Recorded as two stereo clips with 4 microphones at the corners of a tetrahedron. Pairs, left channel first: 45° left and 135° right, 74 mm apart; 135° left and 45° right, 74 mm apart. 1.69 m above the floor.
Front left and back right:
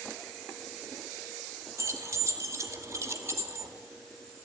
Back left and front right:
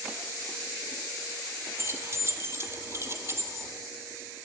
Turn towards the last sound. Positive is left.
turn(degrees=-90)